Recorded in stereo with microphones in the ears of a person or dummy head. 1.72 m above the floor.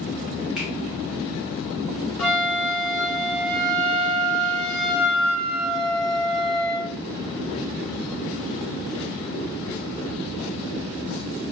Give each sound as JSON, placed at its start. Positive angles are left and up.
{"t": 0.6, "sound": "a finger snap", "side_deg": -5, "distance_m": 0.7}
{"t": 2.2, "sound": "a flute", "side_deg": 0, "distance_m": 1.0}